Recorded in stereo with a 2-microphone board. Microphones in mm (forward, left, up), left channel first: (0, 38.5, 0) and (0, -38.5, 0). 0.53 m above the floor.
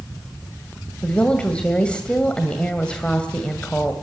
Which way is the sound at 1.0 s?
15° left (ahead or behind).